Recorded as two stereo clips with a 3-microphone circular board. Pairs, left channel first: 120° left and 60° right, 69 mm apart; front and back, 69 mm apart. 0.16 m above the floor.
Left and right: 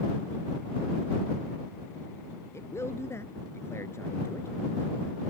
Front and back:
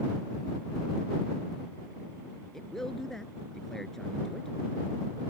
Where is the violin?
I don't hear a violin.